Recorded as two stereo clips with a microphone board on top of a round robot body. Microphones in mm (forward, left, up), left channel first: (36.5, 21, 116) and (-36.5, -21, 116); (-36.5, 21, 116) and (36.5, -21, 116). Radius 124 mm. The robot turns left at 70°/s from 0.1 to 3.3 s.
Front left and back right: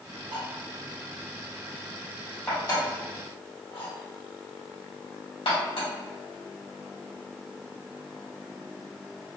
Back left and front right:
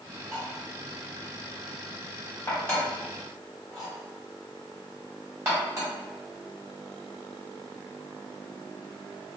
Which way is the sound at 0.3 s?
125° right.